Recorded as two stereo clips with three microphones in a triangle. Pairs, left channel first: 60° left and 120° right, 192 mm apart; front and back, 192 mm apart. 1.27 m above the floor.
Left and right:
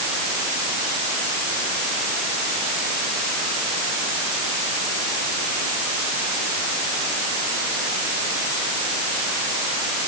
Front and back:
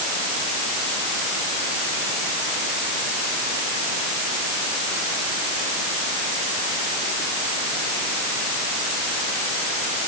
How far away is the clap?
I don't hear a clap.